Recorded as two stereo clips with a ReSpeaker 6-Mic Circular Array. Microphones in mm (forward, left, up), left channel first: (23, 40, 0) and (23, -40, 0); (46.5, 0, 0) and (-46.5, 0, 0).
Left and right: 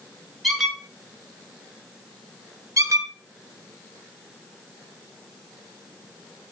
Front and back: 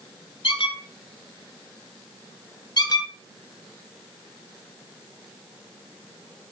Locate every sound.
0.4 s a squeak: straight ahead, 0.8 m
2.8 s a squeak: 40° right, 0.6 m